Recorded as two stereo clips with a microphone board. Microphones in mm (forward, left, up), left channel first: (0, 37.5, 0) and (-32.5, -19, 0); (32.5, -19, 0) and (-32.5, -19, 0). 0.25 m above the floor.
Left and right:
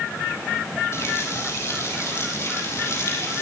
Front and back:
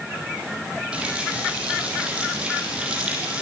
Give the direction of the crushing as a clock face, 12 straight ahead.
I don't hear crushing.